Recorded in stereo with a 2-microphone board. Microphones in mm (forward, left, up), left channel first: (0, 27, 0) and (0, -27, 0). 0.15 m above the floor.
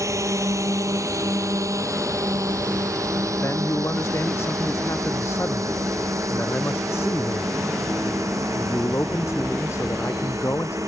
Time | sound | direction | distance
0.0 | a drone | 70° right (ahead or behind) | ?
3.4 | a man speaking | 55° left (ahead or behind) | ?